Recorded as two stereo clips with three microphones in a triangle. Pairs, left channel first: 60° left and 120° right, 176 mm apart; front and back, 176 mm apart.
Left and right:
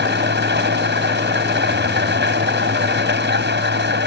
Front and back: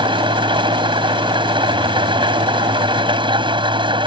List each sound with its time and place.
0.0 s an engine running: 120° right